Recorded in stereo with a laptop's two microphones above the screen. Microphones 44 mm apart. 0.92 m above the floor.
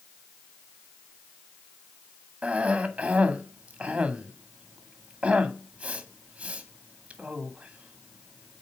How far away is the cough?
About 1.5 m.